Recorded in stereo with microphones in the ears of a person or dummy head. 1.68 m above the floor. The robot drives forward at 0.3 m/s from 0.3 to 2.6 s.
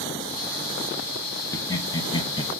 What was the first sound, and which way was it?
Laughter, 20° left (ahead or behind).